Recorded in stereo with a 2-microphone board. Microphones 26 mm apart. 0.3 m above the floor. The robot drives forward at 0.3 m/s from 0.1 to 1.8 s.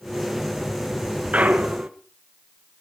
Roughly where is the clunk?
Right.